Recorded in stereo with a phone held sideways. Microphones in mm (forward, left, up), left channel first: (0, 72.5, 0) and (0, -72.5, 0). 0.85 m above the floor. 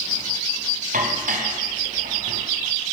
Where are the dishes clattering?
65° right (ahead or behind), 4 m.